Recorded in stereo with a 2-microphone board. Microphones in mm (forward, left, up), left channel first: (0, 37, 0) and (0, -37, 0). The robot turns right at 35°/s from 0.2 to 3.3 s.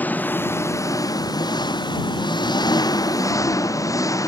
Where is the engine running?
25° left; by 4.3 s 130° left.